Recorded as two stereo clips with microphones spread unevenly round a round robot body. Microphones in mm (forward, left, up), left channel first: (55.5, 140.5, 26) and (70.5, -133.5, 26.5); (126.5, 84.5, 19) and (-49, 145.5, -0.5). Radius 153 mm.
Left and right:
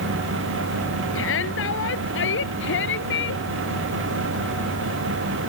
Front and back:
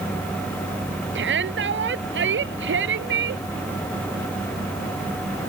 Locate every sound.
1.1 s a shout: 145° left; by 3.4 s 150° left